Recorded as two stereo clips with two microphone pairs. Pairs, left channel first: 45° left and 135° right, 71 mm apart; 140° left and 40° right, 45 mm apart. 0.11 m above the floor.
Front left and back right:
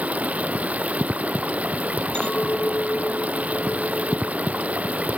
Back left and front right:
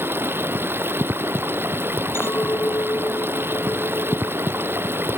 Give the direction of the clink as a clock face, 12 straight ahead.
8 o'clock.